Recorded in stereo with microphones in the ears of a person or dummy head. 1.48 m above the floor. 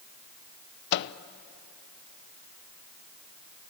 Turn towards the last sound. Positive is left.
turn(degrees=60)  # may be behind; listen again after turning